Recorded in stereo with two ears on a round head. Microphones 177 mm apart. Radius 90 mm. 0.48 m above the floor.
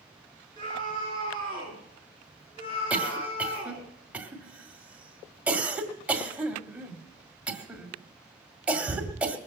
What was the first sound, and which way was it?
A scream, 25° left (ahead or behind).